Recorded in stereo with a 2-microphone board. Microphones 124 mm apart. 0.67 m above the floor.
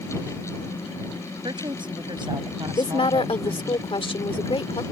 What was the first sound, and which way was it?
A woman speaking, 40° right (ahead or behind).